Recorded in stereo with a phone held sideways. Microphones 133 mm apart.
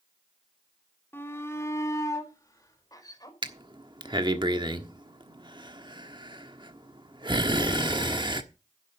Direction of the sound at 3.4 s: 35° right (ahead or behind).